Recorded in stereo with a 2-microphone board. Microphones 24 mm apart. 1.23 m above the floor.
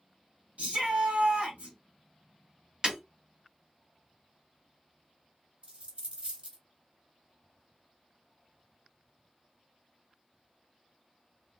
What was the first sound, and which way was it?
A shout, 70° right (ahead or behind).